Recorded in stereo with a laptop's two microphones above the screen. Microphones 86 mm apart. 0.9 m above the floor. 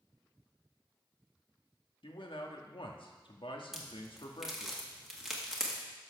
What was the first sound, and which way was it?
A man speaking, 70° left (ahead or behind).